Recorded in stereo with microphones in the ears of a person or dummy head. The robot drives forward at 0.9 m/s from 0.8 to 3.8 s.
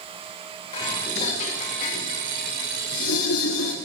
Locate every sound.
0.7 s dishes clattering: 30° left (ahead or behind), 2.5 m; by 3.8 s 70° left (ahead or behind), 1.4 m